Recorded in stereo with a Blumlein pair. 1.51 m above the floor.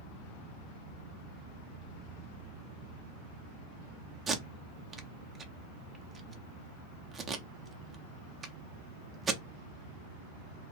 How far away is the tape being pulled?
About 0.5 m.